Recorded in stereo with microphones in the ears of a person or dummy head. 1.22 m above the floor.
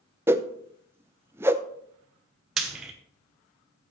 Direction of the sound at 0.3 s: 10° right (ahead or behind).